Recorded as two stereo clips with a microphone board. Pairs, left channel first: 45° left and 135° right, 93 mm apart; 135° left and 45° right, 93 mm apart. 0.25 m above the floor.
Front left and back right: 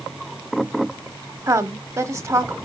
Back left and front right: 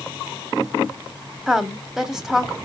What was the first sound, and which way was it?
A woman speaking, 125° right.